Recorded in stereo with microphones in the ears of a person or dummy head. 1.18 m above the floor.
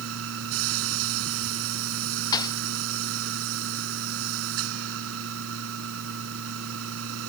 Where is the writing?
No writing in this recording.